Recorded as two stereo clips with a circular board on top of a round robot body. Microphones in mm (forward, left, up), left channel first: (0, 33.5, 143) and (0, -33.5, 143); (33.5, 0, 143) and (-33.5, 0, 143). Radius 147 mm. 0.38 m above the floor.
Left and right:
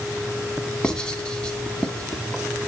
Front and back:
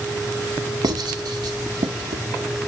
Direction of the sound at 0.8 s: 165° left.